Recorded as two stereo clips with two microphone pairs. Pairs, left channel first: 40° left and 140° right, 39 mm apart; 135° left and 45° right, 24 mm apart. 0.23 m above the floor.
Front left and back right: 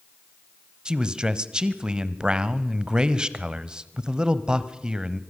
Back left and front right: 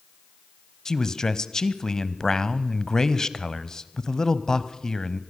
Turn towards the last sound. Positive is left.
turn(degrees=170)